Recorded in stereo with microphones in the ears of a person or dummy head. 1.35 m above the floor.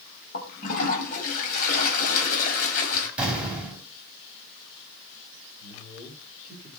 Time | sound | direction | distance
0.3 | a toilet flushing | 50° left (ahead or behind) | 3 m
3.2 | an explosion | 5° right (ahead or behind) | 4.5 m
5.6 | a man speaking | 30° left (ahead or behind) | 5 m